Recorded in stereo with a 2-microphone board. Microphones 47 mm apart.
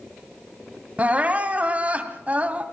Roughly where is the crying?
Right.